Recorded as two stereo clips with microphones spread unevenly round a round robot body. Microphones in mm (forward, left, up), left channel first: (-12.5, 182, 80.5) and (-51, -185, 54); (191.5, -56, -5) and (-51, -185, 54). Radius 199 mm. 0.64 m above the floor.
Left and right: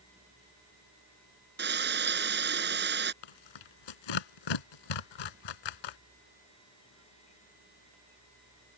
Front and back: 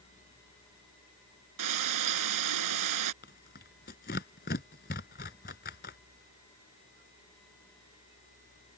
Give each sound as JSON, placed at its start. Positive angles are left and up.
{"t": 1.6, "sound": "frying", "azimuth_deg": -160}
{"t": 3.2, "sound": "tearing paper", "azimuth_deg": 95}